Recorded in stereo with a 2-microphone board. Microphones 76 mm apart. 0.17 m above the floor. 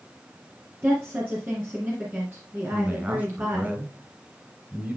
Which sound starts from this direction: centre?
A man speaking, at 2.7 s.